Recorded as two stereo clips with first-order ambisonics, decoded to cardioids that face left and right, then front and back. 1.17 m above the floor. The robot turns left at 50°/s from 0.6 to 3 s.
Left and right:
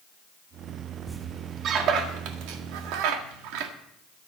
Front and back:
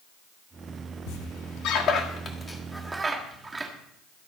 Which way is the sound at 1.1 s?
5° right.